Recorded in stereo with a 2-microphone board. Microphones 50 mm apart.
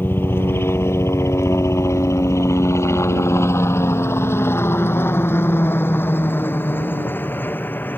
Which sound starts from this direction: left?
A helicopter, at 0.0 s.